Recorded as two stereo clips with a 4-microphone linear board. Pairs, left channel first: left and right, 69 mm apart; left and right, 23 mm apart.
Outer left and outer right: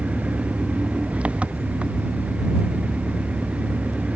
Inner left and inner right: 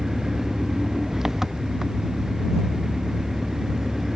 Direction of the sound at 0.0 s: 15° right (ahead or behind).